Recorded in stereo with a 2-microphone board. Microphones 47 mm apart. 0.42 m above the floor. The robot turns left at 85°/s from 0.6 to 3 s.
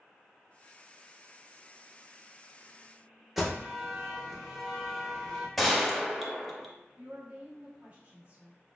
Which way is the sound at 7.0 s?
35° right (ahead or behind).